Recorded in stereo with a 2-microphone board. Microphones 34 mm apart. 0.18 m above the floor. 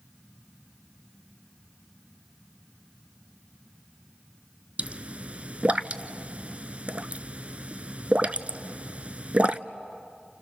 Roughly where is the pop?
Right.